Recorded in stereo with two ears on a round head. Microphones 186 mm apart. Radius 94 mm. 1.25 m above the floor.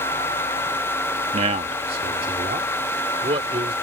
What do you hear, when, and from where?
1.3 s a man speaking: 30° right (ahead or behind); by 3.7 s 25° right (ahead or behind)